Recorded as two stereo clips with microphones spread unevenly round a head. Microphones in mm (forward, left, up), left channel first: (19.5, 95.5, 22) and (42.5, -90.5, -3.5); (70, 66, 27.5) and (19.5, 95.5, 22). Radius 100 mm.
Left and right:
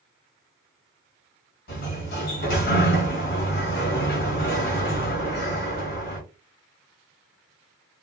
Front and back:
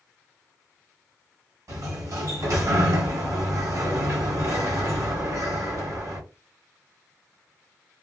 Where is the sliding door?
120° left, 1.3 m.